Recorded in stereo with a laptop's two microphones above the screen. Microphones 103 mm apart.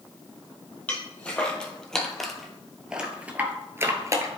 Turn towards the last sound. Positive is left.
turn(degrees=-35)  # may be behind; listen again after turning